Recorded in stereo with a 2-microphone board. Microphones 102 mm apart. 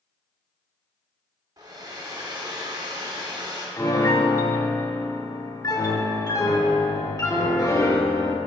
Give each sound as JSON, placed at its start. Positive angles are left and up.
{"t": 1.6, "sound": "a hair dryer", "side_deg": -40, "distance_m": 0.9}
{"t": 3.8, "sound": "a piano", "side_deg": 35, "distance_m": 0.7}